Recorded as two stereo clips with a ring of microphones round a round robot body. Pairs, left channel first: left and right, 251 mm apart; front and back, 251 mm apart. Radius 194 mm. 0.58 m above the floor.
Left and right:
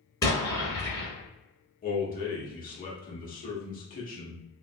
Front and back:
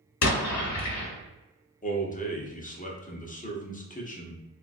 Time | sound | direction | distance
0.2 | an explosion | 10° left | 1.0 m
1.8 | a man speaking | 50° left | 1.0 m